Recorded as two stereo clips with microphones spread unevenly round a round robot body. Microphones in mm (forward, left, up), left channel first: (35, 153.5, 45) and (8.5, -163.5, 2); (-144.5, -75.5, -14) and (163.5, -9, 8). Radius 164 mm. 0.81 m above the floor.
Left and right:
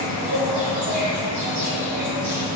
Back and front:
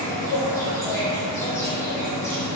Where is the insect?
90° right, 0.9 m.